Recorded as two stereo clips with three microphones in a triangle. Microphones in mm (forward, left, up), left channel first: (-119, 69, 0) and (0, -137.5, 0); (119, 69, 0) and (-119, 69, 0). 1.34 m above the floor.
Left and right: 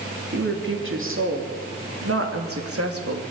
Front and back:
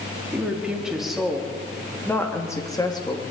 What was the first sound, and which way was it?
A woman speaking, 95° right.